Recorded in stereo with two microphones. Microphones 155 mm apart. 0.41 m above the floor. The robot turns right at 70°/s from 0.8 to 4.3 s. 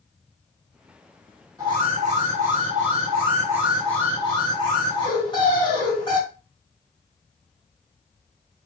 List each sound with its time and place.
1.6 s an alarm: 155° right, 3 m; by 6.2 s 35° left, 3 m